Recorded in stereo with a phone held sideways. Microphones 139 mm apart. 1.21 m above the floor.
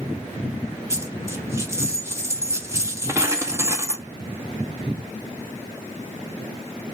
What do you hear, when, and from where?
0.9 s a dropped coin: 20° right (ahead or behind), 0.9 m